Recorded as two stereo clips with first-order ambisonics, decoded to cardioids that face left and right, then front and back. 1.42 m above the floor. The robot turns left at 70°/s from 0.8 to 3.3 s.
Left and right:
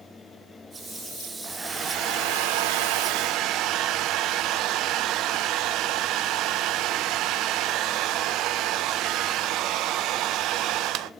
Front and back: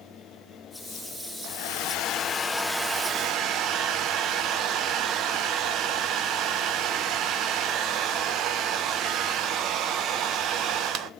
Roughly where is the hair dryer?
Ahead.